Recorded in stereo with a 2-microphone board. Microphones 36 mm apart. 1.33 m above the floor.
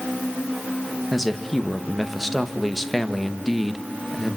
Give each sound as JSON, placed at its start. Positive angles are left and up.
{"t": 1.1, "sound": "a man speaking", "side_deg": 0, "distance_m": 1.6}